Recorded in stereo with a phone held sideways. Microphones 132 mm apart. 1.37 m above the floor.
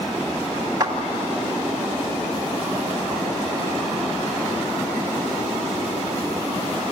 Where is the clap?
30° right (ahead or behind), 2.5 m.